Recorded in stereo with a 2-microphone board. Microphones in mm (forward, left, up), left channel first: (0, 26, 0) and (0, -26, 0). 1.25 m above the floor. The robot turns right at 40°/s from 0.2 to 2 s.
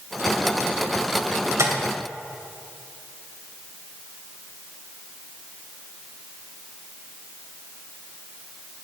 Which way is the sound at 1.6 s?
70° right (ahead or behind).